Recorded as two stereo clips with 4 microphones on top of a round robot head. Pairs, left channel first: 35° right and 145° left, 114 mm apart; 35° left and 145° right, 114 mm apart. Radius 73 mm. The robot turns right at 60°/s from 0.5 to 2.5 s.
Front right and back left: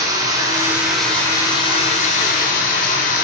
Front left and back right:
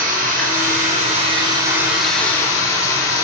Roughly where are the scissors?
No scissors in this recording.